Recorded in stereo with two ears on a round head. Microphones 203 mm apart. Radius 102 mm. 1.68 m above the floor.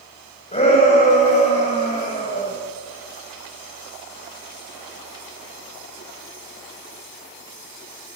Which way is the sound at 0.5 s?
30° left (ahead or behind).